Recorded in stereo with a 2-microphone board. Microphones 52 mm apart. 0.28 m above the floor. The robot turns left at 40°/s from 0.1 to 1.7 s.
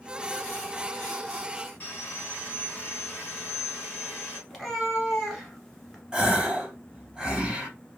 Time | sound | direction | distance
1.8 | sawing | 40° left (ahead or behind) | 2.5 m
4.5 | a cat meowing | 5° left (ahead or behind) | 1.3 m
6.1 | a gasp | 15° right (ahead or behind) | 1.3 m